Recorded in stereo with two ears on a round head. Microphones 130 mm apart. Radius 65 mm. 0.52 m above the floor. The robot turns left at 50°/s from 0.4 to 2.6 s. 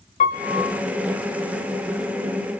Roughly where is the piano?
Left.